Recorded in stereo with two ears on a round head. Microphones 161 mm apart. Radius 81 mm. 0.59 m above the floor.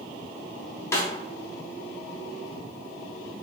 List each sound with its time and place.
0.9 s a snare drum: 15° left (ahead or behind), 0.6 m